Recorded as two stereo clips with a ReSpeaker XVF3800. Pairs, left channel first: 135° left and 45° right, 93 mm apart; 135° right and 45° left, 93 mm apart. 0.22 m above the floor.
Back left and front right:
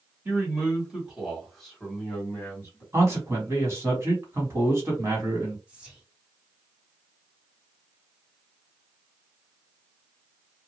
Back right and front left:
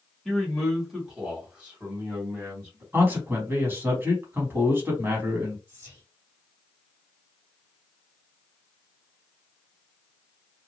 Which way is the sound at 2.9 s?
10° right.